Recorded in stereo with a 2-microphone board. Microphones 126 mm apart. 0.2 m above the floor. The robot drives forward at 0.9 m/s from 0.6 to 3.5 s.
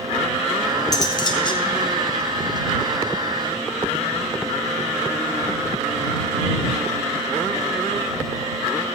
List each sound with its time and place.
0.9 s cutlery clinking: 30° left (ahead or behind), 1.5 m; by 1.6 s 45° left (ahead or behind), 1.1 m